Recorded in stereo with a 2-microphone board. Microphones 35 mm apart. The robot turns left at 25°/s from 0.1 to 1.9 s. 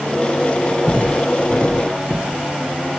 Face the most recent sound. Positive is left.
turn(degrees=-5)  # may be behind; listen again after turning